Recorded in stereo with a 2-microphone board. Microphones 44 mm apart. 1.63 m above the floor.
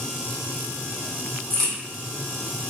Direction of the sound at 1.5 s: 15° left (ahead or behind).